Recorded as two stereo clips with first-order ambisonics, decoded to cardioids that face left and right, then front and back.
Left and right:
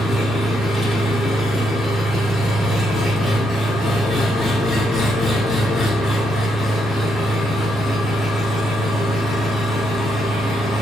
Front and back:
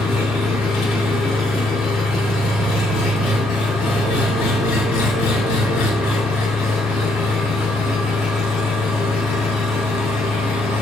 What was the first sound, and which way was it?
An engine running, 25° left.